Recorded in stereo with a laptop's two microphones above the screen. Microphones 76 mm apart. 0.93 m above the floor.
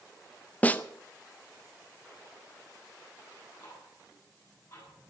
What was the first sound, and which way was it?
A snare drum, 20° left (ahead or behind).